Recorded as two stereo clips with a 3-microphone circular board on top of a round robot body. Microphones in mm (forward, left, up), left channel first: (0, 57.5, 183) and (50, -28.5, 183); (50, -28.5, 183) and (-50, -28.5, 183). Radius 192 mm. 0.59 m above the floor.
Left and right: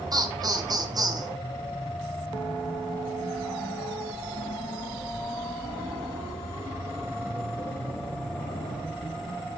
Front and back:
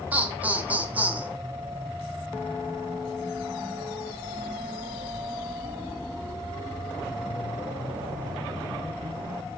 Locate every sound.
0.1 s laughter: 105° right, 1.3 m